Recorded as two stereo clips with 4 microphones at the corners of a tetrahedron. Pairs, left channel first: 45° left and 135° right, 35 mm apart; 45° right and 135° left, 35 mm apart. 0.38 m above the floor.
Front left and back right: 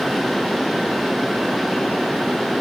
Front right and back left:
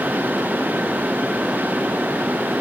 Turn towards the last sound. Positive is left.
No sound to turn to.